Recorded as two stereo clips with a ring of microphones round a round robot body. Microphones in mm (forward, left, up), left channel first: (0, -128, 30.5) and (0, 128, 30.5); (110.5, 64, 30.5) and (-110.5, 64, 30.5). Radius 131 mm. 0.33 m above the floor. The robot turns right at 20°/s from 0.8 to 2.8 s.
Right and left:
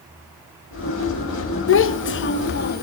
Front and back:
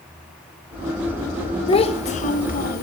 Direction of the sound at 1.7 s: 65° right.